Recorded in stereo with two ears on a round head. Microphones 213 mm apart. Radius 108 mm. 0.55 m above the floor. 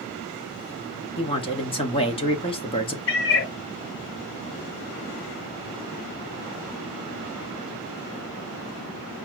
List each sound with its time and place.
1.2 s a man speaking: 20° left (ahead or behind), 1.1 m
3.1 s a cat meowing: 50° left (ahead or behind), 1.0 m